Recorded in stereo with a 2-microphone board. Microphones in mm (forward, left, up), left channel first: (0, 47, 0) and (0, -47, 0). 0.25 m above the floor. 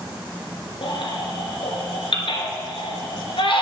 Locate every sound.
0.8 s a baby crying: 75° left (ahead or behind), 1.8 m